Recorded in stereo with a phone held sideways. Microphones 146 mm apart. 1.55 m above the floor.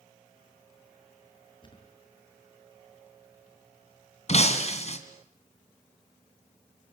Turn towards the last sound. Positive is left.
turn(degrees=50)  # may be behind; listen again after turning